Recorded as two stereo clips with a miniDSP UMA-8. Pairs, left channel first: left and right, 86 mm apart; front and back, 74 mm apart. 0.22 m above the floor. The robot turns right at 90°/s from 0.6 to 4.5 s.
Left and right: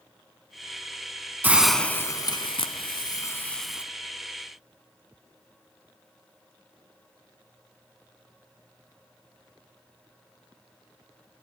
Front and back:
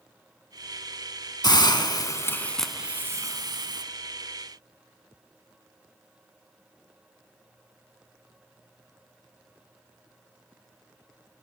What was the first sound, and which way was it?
A hiss, 20° right.